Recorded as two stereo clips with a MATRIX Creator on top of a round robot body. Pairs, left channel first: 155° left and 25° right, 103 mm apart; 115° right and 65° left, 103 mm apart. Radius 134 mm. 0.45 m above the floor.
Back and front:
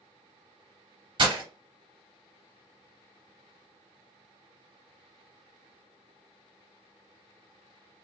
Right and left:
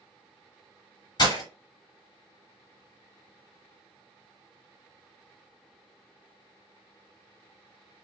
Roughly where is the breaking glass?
Ahead right.